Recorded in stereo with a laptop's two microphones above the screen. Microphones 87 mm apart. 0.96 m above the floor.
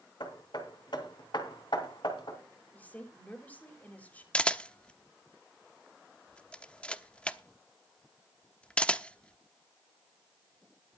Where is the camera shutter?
10° left (ahead or behind), 0.9 m.